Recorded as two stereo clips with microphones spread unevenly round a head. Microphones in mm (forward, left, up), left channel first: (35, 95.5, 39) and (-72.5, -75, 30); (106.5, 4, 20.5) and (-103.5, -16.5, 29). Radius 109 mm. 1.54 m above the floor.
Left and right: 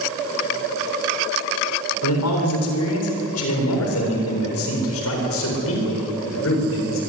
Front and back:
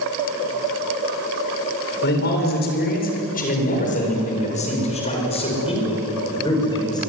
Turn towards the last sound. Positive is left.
turn(degrees=80)